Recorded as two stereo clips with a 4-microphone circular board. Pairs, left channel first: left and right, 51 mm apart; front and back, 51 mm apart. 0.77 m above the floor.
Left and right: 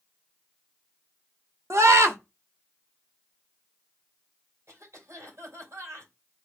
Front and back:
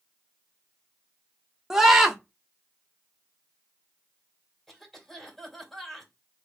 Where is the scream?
100° right, 1.2 m.